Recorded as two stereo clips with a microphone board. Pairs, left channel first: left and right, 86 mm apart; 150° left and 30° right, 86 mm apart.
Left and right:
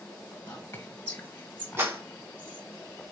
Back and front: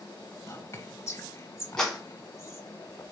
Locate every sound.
0.5 s whispering: 140° left, 1.4 m
1.8 s a clap: 130° right, 1.5 m